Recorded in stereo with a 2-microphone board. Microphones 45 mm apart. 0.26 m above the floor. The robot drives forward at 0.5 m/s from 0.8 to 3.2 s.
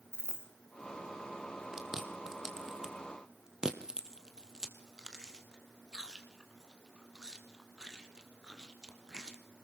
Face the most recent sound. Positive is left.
turn(degrees=-15)  # may be behind; listen again after turning